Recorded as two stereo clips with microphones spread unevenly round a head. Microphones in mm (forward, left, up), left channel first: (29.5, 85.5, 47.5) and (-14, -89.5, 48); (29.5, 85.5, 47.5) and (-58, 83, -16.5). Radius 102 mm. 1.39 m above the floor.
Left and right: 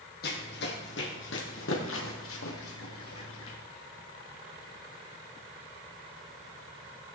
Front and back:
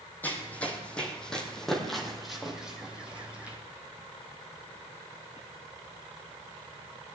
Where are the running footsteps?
45° left, 3 m; by 3.6 s 90° left, 3 m.